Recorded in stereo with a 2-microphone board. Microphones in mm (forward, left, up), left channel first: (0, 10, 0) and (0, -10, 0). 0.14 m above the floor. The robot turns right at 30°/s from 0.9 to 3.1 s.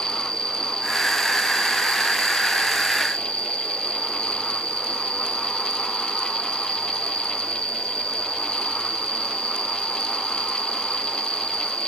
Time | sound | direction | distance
0.0 | an insect | 45° left | ?